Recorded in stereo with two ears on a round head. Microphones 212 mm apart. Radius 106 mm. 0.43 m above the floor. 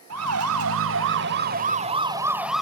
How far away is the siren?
About 2 m.